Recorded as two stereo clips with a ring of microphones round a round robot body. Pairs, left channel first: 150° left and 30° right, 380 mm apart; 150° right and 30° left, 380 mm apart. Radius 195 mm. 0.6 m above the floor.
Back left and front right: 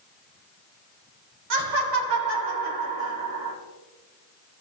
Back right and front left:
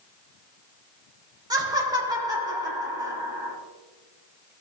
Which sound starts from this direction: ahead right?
Laughter, at 1.5 s.